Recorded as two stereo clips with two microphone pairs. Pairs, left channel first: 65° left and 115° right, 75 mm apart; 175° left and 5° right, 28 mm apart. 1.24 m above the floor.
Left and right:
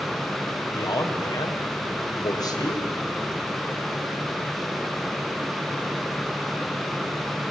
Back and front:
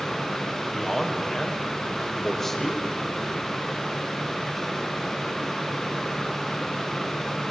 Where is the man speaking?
95° left, 5.5 m.